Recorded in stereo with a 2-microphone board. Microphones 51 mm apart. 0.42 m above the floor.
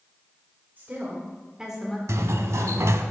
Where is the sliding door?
85° right, 0.6 m.